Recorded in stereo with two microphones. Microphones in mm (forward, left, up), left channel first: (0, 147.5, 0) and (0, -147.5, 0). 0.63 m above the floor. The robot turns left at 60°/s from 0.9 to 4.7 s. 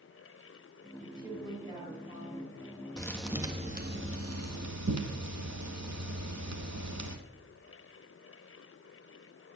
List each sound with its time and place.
1.0 s a woman speaking: 150° right, 4 m; by 2.6 s 110° left, 4 m
3.0 s a thud: 15° left, 1.3 m; by 7.2 s 90° right, 1.3 m